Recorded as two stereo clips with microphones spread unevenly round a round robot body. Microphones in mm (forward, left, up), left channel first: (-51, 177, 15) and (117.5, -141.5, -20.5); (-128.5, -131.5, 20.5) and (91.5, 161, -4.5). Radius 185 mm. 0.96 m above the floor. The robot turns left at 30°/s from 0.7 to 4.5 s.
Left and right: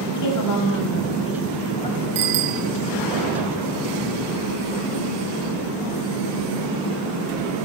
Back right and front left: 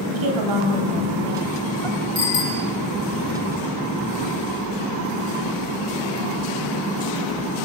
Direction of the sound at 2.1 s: 50° right.